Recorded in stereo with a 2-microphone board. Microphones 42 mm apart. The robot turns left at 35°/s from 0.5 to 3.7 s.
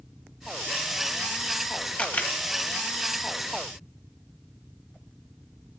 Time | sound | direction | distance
2.0 | a camera shutter | 30° left (ahead or behind) | 0.9 m